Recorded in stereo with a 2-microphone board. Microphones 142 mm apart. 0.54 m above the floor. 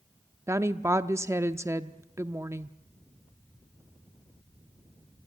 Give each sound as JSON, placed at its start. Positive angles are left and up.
{"t": 0.5, "sound": "a woman speaking", "side_deg": -20, "distance_m": 0.6}